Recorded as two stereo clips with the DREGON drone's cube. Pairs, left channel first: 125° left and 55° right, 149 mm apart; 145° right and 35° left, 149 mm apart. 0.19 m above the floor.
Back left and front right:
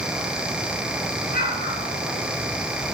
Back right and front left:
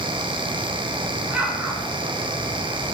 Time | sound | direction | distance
1.3 | an explosion | 115° left | 1.8 m